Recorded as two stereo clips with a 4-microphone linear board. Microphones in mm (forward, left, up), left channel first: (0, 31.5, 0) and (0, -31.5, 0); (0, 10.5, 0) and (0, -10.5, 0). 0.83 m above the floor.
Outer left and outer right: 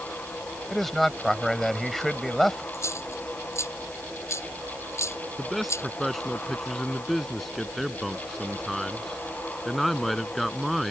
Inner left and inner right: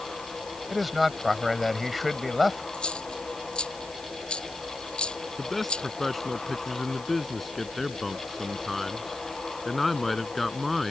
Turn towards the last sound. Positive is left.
turn(degrees=0)  # may be behind; listen again after turning